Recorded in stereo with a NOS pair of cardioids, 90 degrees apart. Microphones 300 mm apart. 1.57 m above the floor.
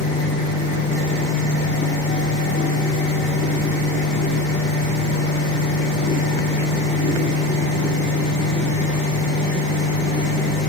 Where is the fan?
40° left, 5 m.